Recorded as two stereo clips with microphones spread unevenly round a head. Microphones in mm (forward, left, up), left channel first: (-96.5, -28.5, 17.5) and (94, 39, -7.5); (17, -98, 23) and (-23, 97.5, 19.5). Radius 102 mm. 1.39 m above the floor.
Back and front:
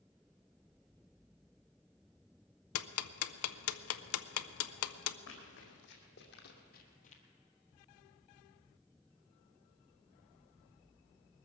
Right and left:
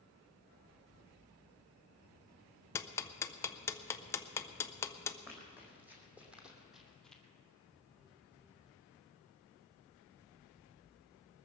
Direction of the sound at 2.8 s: 155° right.